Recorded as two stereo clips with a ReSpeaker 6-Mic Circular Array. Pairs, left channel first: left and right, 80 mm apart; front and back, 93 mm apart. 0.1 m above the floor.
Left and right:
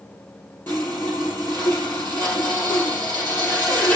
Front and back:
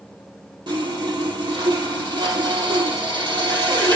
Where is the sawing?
155° left, 3.5 m.